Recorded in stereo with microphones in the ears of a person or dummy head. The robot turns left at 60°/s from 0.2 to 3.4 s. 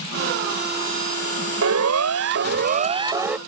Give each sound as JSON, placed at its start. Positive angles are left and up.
{"t": 1.6, "sound": "a siren", "side_deg": -75}